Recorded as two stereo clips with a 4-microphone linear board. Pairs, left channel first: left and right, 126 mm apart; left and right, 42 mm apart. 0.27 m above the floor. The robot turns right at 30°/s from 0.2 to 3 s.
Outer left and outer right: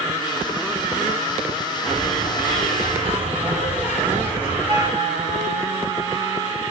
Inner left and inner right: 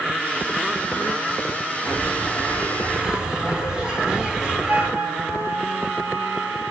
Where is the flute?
35° right (ahead or behind), 1.2 m.